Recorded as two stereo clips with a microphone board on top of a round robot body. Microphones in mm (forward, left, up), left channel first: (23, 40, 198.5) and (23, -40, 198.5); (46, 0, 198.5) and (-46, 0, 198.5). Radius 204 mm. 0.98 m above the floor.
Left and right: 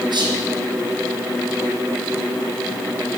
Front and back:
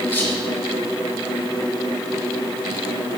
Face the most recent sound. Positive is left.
turn(degrees=-70)